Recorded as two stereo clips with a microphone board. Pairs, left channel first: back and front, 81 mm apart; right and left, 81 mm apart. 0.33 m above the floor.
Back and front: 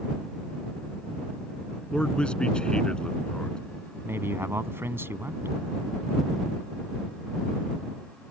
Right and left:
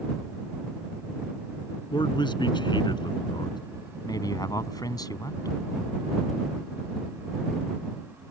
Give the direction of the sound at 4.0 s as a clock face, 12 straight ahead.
2 o'clock.